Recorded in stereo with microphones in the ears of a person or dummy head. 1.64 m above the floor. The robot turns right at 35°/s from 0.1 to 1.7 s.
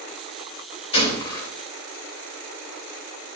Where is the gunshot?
30° left (ahead or behind), 3.5 m; by 1.5 s 15° left (ahead or behind), 3.5 m.